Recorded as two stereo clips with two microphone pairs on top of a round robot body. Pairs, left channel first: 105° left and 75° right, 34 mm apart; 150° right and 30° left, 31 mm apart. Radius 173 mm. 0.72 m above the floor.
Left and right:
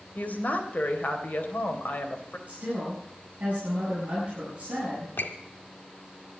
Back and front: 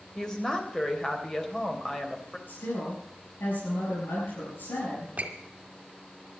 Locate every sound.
0.1 s a woman speaking: 140° left, 3.5 m
2.5 s a woman speaking: 130° right, 8 m
5.2 s a squeak: 80° left, 1.8 m